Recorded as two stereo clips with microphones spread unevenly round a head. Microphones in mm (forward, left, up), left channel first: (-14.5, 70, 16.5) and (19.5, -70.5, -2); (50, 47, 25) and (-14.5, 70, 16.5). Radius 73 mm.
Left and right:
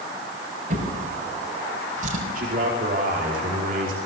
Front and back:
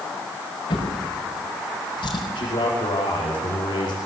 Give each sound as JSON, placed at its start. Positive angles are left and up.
{"t": 0.7, "sound": "a drawer", "azimuth_deg": -40, "distance_m": 6.0}
{"t": 2.4, "sound": "a man speaking", "azimuth_deg": -45, "distance_m": 5.0}